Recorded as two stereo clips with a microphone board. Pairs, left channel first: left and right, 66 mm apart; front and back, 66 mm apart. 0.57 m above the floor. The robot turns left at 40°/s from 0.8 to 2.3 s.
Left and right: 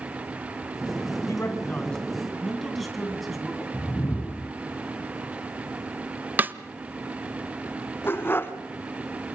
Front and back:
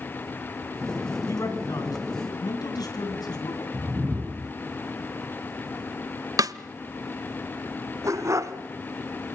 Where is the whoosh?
115° left, 0.8 m.